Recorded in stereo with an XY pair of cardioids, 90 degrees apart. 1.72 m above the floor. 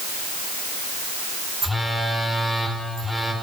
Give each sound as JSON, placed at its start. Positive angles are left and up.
{"t": 1.6, "sound": "a phone buzzing", "azimuth_deg": -5, "distance_m": 3.5}